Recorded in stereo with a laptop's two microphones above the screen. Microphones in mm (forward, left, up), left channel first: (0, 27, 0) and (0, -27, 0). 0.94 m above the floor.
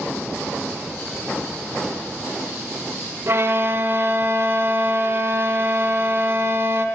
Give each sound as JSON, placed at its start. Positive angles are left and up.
{"t": 3.3, "sound": "a violin", "side_deg": -50, "distance_m": 0.9}